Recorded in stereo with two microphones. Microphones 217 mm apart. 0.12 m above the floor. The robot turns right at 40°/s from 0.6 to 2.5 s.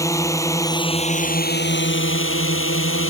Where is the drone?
15° left; by 3.1 s 90° left.